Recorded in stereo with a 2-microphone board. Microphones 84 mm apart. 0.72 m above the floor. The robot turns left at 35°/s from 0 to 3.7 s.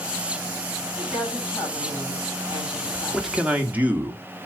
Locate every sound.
0.9 s a woman speaking: 95° left, 5.5 m; by 3.8 s straight ahead, 5.5 m
3.1 s a man speaking: 5° right (ahead or behind), 1.6 m; by 4.2 s 20° right (ahead or behind), 1.6 m